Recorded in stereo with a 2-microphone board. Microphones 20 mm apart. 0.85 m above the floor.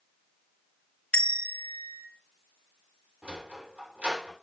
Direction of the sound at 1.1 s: 70° left (ahead or behind).